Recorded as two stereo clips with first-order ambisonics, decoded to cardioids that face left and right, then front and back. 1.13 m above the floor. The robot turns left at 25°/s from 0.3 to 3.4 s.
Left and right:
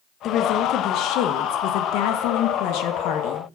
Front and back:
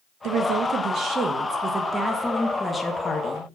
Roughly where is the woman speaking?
Behind left.